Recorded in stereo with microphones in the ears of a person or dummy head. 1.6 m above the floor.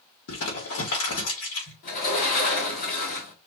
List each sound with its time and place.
0.3 s crumpling: 80° left, 2.5 m
1.8 s a sliding door: 45° left (ahead or behind), 1.5 m